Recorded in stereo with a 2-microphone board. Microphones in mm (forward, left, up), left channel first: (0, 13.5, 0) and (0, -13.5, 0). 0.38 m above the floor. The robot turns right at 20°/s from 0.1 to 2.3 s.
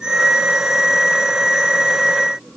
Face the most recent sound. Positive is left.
No sound to turn to.